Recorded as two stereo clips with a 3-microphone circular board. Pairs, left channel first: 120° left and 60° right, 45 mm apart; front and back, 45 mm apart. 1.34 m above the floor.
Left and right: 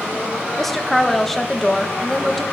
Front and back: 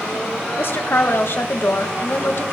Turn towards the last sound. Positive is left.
turn(degrees=35)